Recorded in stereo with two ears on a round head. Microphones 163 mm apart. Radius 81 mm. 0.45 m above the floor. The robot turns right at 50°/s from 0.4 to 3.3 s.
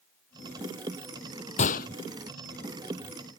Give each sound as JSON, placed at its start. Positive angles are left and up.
{"t": 1.6, "sound": "a gunshot", "side_deg": 40}